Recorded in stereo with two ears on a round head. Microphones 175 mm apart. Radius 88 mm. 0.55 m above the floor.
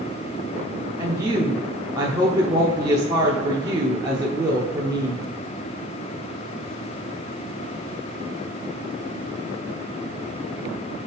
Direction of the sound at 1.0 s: 20° right (ahead or behind).